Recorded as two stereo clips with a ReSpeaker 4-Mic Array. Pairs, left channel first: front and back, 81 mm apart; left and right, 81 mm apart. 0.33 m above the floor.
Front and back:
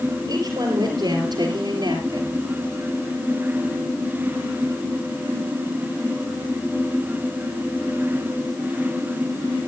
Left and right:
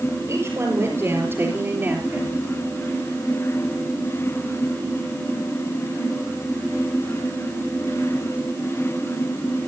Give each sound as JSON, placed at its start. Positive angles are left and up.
{"t": 0.3, "sound": "a woman speaking", "azimuth_deg": -145, "distance_m": 5.5}